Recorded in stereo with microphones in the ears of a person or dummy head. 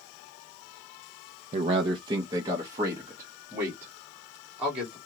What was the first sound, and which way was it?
A man speaking, 40° right (ahead or behind).